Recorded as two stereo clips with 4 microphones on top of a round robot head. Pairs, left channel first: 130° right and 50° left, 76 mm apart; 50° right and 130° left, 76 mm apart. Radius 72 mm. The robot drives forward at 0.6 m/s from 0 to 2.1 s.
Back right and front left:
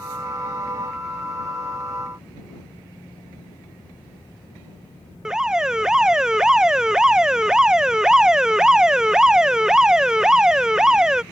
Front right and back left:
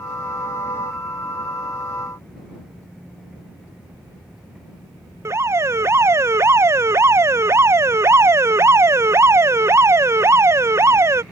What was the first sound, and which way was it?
An alarm, 125° left.